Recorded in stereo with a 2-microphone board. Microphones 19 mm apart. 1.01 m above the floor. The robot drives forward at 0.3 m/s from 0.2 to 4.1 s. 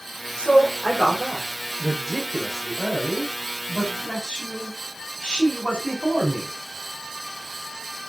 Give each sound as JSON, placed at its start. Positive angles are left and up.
{"t": 0.4, "sound": "a man speaking", "side_deg": 50, "distance_m": 5.0}